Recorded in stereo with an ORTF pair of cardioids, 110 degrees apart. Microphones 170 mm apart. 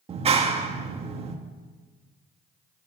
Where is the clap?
35° right, 1.8 m.